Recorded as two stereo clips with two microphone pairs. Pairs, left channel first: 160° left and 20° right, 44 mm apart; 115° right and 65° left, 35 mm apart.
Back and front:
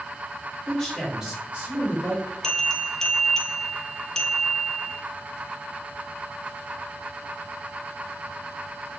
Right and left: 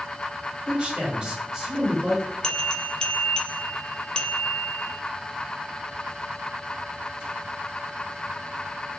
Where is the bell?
145° right, 0.5 m.